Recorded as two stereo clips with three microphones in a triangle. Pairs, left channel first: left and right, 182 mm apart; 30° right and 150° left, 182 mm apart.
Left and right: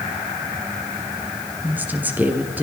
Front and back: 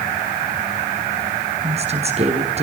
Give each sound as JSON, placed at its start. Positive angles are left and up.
{"t": 1.6, "sound": "a woman speaking", "azimuth_deg": -170, "distance_m": 2.5}